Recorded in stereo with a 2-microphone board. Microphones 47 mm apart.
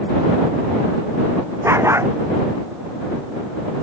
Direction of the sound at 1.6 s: 80° right.